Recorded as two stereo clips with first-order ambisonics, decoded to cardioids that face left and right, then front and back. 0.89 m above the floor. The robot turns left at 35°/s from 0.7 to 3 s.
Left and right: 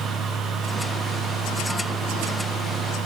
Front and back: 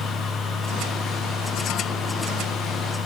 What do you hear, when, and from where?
Only background noise.